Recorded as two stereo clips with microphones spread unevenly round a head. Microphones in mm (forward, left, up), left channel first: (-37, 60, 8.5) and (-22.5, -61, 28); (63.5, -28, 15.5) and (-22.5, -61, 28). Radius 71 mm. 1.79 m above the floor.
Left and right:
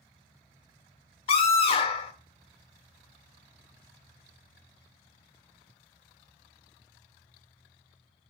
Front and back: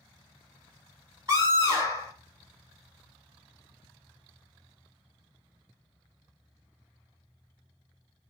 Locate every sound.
1.3 s a scream: 140° left, 2 m